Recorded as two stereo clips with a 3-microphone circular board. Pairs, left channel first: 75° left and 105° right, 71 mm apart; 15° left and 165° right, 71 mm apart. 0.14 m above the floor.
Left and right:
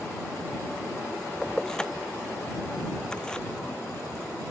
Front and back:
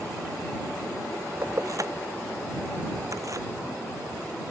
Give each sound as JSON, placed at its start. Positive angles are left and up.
{"t": 1.4, "sound": "keys jangling", "azimuth_deg": 155}